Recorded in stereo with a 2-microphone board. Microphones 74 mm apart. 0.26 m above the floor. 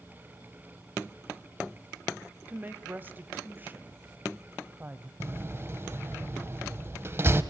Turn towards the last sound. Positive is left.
turn(degrees=-30)  # may be behind; listen again after turning